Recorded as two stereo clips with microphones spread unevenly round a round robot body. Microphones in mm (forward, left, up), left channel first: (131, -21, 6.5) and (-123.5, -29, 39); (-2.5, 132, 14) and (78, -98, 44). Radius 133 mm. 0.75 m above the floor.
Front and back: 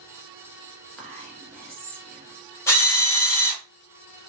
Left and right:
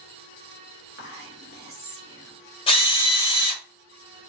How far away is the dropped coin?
I don't hear a dropped coin.